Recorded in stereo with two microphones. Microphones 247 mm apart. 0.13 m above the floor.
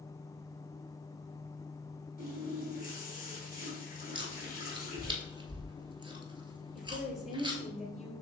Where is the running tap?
35° left (ahead or behind), 2.5 m.